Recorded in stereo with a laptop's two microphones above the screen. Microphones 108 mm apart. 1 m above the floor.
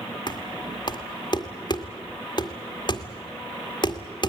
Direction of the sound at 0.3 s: 45° left (ahead or behind).